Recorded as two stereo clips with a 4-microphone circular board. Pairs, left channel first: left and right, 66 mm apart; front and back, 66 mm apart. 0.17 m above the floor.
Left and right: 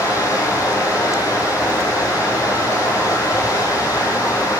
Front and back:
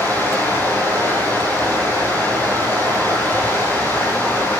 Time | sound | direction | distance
0.0 | running water | 60° left | 8 m